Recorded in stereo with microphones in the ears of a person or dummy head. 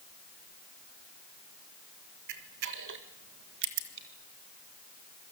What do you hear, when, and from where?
2.3 s a camera shutter: 55° right (ahead or behind), 1.8 m